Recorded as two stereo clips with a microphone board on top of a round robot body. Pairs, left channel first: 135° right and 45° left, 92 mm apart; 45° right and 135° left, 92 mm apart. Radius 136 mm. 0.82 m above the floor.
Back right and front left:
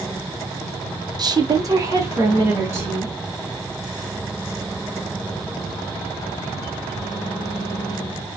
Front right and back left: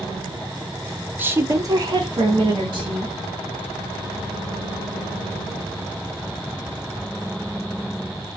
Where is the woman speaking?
70° left, 0.6 m; by 3.2 s 110° left, 1.4 m.